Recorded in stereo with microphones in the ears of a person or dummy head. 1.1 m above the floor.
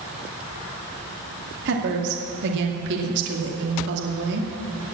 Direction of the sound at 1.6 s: 65° right (ahead or behind).